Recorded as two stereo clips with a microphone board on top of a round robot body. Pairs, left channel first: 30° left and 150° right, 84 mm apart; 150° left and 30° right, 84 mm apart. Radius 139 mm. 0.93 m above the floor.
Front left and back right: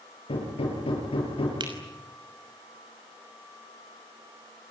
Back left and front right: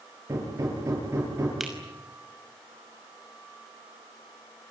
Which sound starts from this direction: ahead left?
Hammering, at 0.3 s.